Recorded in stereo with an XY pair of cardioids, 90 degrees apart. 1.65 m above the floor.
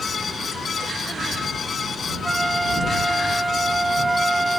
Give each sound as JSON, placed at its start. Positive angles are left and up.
{"t": 0.0, "sound": "a fan", "azimuth_deg": 50}
{"t": 2.2, "sound": "a flute", "azimuth_deg": -15}